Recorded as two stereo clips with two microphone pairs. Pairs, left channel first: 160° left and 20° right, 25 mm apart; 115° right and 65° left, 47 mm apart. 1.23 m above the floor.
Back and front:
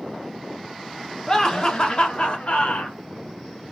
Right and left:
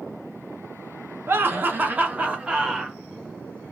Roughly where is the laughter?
Left.